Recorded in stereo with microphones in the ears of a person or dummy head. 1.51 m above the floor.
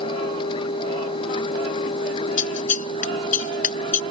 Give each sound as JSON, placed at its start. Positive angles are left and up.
{"t": 0.0, "sound": "a machine running", "side_deg": 30}
{"t": 2.4, "sound": "scissors", "side_deg": 45}